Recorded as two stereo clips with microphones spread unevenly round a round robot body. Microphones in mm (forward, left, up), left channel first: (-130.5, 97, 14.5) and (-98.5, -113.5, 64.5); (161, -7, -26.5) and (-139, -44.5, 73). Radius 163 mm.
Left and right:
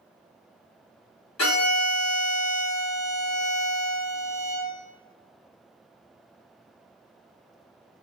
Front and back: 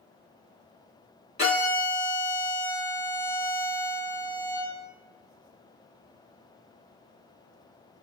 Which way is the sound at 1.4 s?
80° left.